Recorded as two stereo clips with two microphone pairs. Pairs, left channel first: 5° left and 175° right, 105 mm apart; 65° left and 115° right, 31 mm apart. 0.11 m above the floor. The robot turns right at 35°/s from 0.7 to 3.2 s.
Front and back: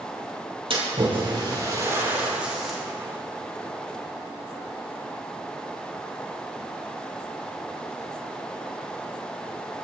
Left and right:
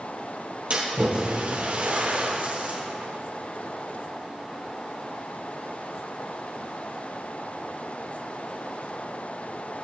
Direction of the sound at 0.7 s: 155° right.